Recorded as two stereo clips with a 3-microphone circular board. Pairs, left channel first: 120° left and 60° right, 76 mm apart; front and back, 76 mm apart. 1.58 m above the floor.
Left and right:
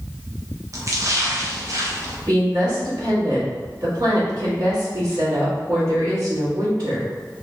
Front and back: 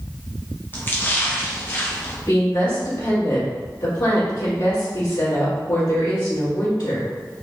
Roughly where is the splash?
Ahead right.